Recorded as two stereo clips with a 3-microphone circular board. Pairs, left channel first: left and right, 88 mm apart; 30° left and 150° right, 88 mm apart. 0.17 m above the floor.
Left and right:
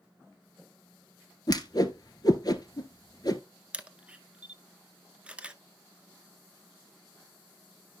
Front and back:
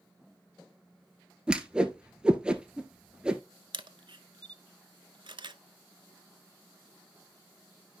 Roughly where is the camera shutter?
Behind.